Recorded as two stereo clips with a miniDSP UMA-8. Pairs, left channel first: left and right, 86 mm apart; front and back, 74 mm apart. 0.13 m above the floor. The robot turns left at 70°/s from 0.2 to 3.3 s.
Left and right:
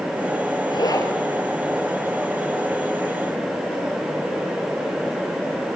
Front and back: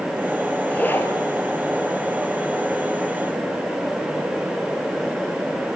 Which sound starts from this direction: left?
A zipper, at 0.7 s.